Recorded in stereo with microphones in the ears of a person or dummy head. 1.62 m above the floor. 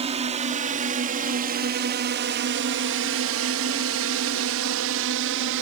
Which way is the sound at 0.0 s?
25° right (ahead or behind).